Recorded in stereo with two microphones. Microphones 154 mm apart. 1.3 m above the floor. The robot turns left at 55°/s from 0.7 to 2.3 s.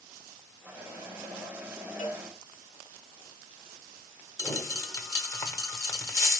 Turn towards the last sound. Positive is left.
turn(degrees=20)  # may be behind; listen again after turning